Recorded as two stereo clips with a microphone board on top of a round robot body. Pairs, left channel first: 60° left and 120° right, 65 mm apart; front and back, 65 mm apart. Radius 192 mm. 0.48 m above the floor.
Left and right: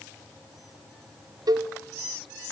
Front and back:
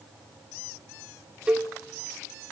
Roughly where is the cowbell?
Right.